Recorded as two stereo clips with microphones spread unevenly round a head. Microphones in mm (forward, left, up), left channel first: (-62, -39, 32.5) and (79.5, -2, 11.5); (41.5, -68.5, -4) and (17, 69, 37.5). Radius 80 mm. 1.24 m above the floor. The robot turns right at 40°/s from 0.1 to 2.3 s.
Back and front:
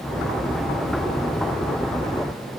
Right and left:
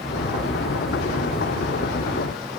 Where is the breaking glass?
I don't hear breaking glass.